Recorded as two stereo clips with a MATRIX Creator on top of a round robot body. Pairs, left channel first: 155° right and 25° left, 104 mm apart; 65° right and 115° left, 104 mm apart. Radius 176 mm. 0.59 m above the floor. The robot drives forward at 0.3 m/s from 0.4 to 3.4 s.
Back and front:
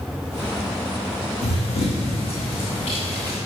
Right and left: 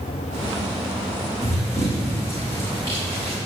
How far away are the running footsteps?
About 2.5 m.